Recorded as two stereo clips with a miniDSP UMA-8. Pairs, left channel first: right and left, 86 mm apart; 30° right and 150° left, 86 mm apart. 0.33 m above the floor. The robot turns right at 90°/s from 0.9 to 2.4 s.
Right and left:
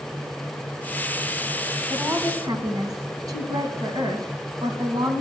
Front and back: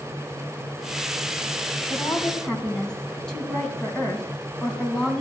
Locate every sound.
1.9 s a woman speaking: 10° left, 2.5 m; by 5.2 s 55° left, 2.5 m